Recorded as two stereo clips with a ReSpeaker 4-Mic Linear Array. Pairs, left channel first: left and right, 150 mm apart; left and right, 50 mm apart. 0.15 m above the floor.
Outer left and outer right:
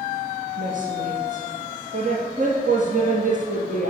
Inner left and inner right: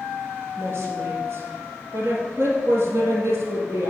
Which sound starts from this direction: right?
A woman speaking, at 0.6 s.